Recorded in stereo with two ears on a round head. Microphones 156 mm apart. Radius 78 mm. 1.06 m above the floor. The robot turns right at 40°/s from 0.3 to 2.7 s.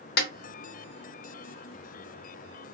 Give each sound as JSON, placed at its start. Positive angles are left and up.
{"t": 0.2, "sound": "a snare drum", "side_deg": 60, "distance_m": 0.9}